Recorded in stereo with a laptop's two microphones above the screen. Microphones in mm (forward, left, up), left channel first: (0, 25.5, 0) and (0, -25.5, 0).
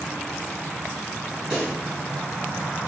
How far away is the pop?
About 2 m.